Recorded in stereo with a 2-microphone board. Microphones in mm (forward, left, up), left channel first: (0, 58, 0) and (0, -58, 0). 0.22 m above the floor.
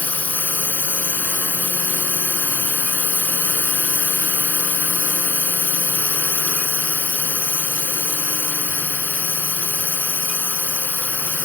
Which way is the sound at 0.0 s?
15° left (ahead or behind).